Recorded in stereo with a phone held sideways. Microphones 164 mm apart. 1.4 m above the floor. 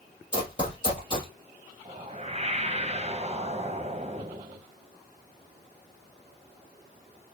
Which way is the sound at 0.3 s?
30° left (ahead or behind).